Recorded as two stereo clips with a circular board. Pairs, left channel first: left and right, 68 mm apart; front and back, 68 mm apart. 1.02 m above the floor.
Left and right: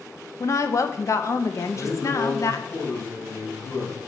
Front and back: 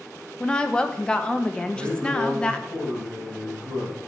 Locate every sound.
0.4 s a woman speaking: 70° left, 1.0 m
1.7 s a man speaking: 135° left, 6 m